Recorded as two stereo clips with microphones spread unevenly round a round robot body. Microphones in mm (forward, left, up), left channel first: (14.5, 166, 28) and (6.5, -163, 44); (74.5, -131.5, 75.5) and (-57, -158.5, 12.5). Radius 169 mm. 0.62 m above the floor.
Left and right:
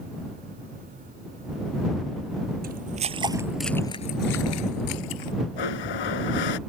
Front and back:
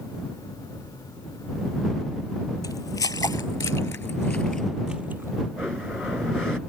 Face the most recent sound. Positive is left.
turn(degrees=100)